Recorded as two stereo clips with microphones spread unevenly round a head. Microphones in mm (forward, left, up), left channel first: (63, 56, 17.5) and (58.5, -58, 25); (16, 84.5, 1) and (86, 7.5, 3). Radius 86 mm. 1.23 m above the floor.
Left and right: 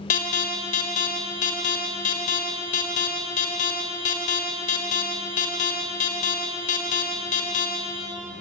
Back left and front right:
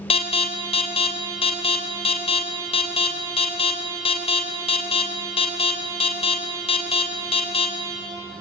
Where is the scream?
No scream in this recording.